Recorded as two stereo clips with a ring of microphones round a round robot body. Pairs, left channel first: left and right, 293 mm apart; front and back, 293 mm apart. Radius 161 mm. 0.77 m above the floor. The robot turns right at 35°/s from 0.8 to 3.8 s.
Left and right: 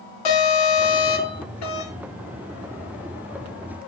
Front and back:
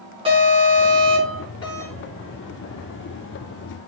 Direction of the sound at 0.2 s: 105° left.